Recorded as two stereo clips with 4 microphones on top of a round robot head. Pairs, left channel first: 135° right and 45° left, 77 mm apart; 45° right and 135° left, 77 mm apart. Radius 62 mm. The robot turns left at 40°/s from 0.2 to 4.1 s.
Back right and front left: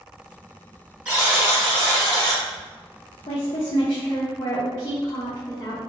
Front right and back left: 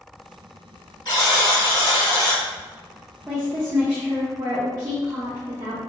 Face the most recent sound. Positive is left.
turn(degrees=175)